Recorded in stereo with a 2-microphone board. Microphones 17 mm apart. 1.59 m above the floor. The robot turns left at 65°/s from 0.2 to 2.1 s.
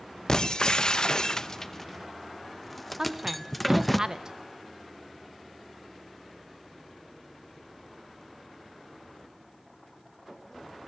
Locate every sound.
0.3 s breaking glass: 30° left (ahead or behind), 0.9 m; by 4.0 s 10° left (ahead or behind), 0.9 m
3.0 s a woman speaking: 30° right (ahead or behind), 1.7 m